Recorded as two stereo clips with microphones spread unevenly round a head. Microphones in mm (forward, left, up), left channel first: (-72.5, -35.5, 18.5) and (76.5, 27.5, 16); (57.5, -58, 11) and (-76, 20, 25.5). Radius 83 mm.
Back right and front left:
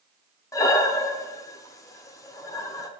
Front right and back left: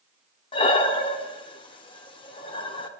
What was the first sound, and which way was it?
Breathing, 90° right.